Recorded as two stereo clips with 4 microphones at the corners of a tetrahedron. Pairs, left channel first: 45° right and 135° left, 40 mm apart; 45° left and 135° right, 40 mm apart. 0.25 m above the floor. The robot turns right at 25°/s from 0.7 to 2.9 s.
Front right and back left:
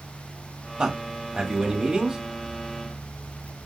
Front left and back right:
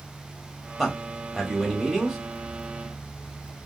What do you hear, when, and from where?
0.8 s a man speaking: 140° left, 0.9 m; by 2.2 s 175° left, 0.9 m